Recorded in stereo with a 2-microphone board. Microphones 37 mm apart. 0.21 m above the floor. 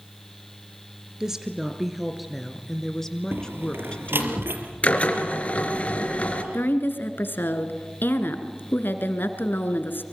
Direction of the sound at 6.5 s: 65° left (ahead or behind).